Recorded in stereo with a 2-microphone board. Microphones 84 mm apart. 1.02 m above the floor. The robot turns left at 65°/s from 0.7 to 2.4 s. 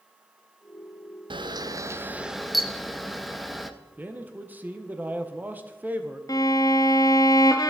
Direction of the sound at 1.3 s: 110° right.